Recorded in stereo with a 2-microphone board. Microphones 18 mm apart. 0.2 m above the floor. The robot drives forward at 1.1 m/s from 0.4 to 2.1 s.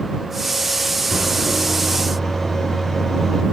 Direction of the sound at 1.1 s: 10° left (ahead or behind).